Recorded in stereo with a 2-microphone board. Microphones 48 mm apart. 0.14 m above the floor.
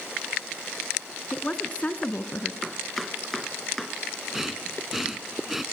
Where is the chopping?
Centre (ahead or behind), 1.3 m.